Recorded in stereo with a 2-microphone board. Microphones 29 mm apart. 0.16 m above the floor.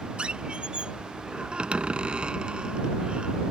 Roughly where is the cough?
I don't hear a cough.